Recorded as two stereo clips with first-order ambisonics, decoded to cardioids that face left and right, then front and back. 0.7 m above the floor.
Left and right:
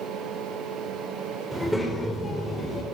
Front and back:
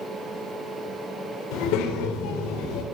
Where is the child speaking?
Straight ahead, 2.0 m; by 2.8 s 25° left, 2.5 m.